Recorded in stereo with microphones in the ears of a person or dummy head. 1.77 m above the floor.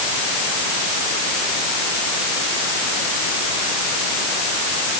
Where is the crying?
No crying in this recording.